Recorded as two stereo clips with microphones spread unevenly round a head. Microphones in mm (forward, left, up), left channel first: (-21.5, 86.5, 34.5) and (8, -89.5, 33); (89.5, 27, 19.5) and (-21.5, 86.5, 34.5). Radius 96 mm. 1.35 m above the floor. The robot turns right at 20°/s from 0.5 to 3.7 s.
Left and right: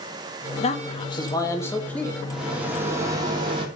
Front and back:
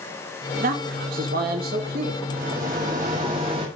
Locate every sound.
0.6 s a man speaking: 155° left, 1.8 m; by 2.2 s 175° right, 1.8 m
2.3 s a rattle: 170° right, 2.5 m; by 3.6 s 140° right, 2.5 m